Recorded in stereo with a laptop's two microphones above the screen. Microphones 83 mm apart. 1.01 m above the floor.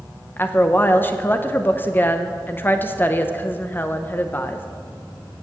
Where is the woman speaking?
25° left (ahead or behind), 0.7 m.